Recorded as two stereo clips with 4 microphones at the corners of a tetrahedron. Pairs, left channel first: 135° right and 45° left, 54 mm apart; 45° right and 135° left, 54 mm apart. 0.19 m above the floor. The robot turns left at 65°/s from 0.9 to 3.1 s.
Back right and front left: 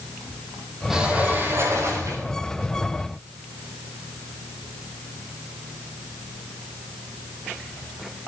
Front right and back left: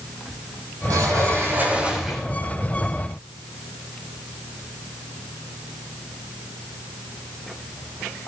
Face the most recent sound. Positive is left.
turn(degrees=-15)